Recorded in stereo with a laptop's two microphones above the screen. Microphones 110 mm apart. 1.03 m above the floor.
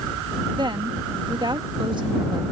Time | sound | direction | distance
0.6 | a woman speaking | 45° right (ahead or behind) | ?